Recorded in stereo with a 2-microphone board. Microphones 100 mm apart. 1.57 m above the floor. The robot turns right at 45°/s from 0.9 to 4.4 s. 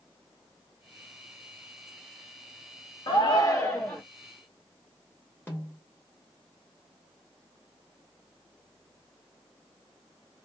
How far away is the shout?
About 0.5 m.